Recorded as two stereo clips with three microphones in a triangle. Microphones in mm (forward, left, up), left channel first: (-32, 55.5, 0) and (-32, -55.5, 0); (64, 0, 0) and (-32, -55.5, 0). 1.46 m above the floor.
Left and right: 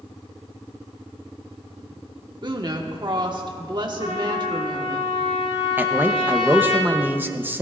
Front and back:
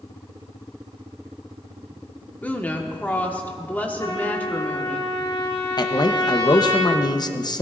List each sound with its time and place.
2.4 s a woman speaking: 45° right, 1.4 m
4.0 s a trumpet: 85° left, 5 m
5.8 s a man speaking: 20° right, 0.8 m